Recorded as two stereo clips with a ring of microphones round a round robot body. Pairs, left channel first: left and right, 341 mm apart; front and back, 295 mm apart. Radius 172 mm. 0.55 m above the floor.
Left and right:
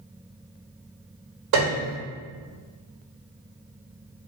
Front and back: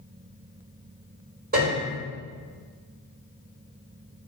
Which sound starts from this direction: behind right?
A piano, at 1.5 s.